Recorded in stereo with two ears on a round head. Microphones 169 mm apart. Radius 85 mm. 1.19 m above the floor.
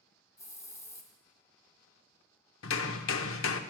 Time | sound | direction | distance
0.4 | a hiss | 20° left (ahead or behind) | 1.8 m
2.6 | hammering | 80° left | 0.8 m